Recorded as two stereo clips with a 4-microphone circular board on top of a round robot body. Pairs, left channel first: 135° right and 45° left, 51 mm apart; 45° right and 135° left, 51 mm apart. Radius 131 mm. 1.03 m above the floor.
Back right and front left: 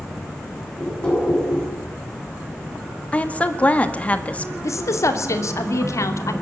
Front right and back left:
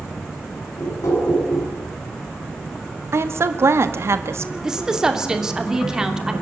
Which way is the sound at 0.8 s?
60° right.